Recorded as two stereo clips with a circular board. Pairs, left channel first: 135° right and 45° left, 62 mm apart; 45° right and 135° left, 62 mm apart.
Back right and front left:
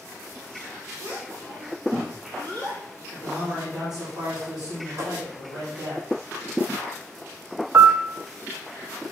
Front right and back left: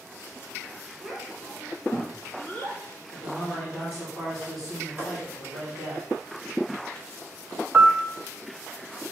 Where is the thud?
75° left, 5 m.